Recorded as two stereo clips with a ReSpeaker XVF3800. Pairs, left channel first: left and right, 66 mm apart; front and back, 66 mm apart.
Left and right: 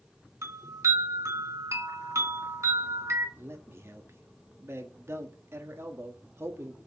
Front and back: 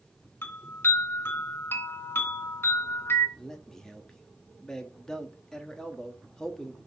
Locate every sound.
0.4 s a chime: 55° right, 2.5 m
3.4 s a man speaking: 75° right, 1.2 m